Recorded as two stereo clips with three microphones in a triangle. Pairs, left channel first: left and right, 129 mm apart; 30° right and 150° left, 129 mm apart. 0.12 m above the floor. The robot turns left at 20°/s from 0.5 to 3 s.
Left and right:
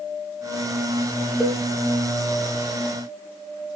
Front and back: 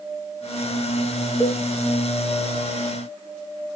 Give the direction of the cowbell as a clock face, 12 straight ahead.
12 o'clock.